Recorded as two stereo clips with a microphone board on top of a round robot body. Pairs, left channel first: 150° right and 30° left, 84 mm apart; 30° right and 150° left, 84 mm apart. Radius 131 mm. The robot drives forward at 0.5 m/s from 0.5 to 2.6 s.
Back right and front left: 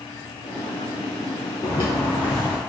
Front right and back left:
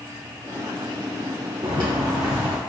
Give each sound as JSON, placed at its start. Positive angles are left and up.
{"t": 1.6, "sound": "footsteps", "azimuth_deg": 180, "distance_m": 0.9}